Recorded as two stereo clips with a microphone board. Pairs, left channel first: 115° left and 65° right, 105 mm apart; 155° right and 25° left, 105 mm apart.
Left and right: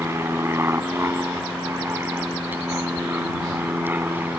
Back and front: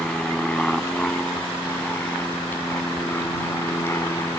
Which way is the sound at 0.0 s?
85° right.